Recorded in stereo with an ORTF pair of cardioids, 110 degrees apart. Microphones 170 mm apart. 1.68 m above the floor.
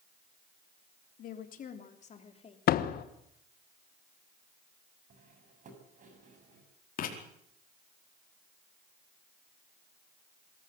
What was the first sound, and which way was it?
A woman speaking, 60° left.